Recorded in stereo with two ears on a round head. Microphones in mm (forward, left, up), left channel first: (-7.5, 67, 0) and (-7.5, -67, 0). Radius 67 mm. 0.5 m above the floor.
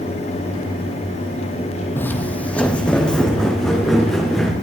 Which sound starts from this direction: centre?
Footsteps, at 2.0 s.